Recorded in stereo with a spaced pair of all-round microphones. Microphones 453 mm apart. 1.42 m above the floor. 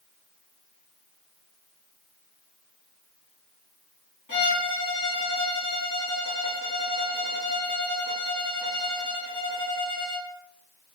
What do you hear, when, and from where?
4.3 s a violin: 40° left (ahead or behind), 1.2 m